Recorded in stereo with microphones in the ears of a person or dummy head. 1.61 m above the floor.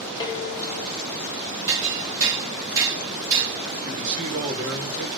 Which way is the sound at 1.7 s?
15° right (ahead or behind).